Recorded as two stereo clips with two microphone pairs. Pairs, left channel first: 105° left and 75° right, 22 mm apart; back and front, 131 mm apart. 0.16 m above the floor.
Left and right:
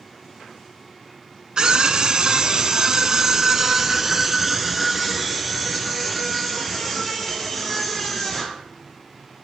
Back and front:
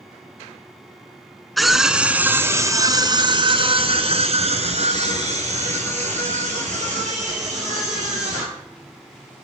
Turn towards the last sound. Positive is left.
turn(degrees=20)